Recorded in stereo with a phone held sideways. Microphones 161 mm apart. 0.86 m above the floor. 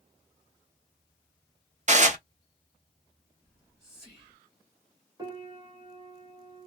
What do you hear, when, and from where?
1.9 s dishes clattering: 50° right (ahead or behind), 0.6 m
3.4 s whispering: 5° left (ahead or behind), 1.1 m
5.2 s a piano: 25° right (ahead or behind), 1.0 m